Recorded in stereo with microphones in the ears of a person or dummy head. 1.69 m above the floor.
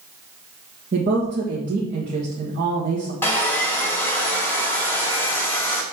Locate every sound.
0.9 s a woman speaking: 40° right (ahead or behind), 1.6 m
3.2 s sawing: 10° left (ahead or behind), 1.0 m